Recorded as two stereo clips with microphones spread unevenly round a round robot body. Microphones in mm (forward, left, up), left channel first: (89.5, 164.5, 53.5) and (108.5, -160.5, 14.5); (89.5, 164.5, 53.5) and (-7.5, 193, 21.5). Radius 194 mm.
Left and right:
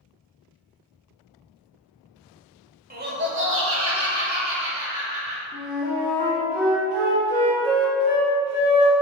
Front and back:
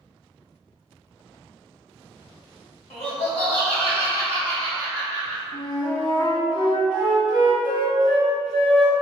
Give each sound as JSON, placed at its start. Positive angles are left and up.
{"t": 2.9, "sound": "laughter", "azimuth_deg": -40, "distance_m": 1.2}
{"t": 5.5, "sound": "a flute", "azimuth_deg": -15, "distance_m": 1.3}